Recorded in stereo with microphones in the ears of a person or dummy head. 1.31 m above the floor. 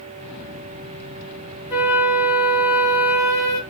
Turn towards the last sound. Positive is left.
turn(degrees=-20)  # may be behind; listen again after turning